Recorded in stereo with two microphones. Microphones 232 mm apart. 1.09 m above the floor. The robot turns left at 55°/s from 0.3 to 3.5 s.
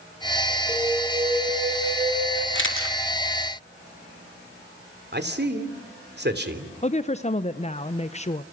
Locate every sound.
0.7 s an alarm: 5° left, 7 m; by 2.5 s 90° right, 7 m
2.5 s a camera shutter: 50° left (ahead or behind), 3 m; by 3.0 s 70° left (ahead or behind), 3 m
5.1 s a man speaking: 45° right (ahead or behind), 3 m
6.8 s a woman speaking: 30° left (ahead or behind), 0.7 m